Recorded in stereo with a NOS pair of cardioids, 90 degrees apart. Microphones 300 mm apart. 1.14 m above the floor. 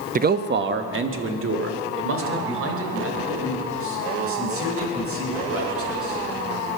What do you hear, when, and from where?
0.1 s a man speaking: 30° right, 0.8 m; by 6.2 s 50° right, 10 m